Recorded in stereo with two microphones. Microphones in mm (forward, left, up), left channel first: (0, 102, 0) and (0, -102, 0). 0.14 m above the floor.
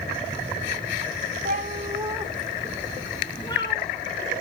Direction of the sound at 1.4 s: 45° right (ahead or behind).